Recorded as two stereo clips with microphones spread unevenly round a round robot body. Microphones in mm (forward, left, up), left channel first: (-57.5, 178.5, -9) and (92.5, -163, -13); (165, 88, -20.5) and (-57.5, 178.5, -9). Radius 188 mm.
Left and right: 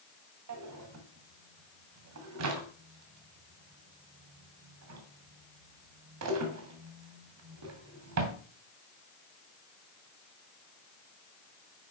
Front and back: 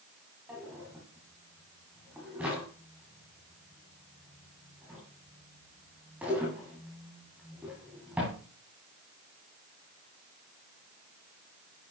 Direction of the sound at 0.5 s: 115° right.